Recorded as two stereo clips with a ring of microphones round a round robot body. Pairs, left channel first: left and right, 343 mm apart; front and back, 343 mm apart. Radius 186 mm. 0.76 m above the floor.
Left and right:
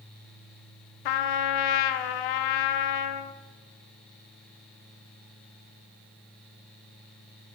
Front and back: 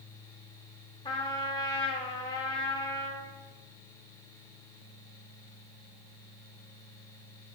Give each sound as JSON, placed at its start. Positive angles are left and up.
{"t": 1.1, "sound": "a trumpet", "azimuth_deg": 80, "distance_m": 0.5}